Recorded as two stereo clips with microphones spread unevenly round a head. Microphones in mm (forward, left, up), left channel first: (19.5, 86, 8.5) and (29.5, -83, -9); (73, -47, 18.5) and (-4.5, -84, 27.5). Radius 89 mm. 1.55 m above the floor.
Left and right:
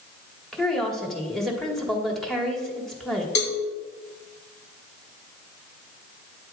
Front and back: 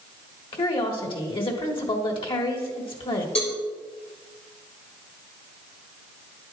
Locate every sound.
0.5 s a woman speaking: 5° left, 1.6 m
3.4 s a cowbell: 80° left, 1.4 m